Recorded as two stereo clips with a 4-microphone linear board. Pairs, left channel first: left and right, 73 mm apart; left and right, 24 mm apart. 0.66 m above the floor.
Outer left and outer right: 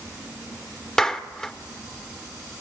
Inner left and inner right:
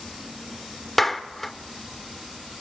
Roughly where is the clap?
Centre.